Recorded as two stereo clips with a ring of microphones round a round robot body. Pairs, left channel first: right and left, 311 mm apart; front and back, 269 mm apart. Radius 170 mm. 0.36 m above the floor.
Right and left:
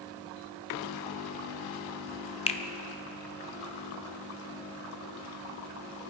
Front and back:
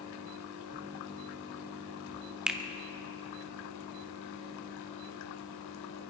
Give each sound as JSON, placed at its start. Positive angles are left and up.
{"t": 2.5, "sound": "a finger snap", "azimuth_deg": -100, "distance_m": 1.0}